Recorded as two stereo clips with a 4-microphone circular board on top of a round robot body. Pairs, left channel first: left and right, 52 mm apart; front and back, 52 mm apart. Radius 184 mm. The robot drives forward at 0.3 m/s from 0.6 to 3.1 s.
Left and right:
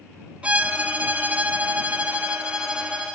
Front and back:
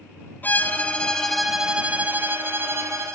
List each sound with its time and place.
0.4 s a violin: 30° right, 0.6 m; by 3.2 s 160° right, 0.7 m